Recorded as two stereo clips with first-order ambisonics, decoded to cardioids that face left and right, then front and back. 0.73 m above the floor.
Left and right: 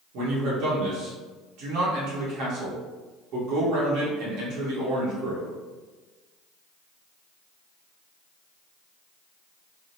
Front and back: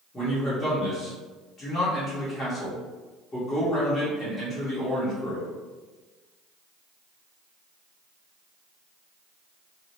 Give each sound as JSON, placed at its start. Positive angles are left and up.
{"t": 0.1, "sound": "a man speaking", "azimuth_deg": -70, "distance_m": 1.6}